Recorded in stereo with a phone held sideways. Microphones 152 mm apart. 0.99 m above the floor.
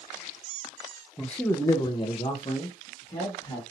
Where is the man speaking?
Centre (ahead or behind), 0.6 m; by 3.6 s 35° left (ahead or behind), 1.6 m.